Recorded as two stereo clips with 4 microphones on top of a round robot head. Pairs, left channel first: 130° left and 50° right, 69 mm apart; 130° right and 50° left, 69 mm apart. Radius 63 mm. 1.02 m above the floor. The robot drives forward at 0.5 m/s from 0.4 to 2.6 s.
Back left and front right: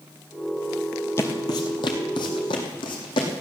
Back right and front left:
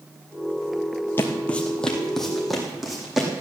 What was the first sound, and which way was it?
Footsteps, 175° left.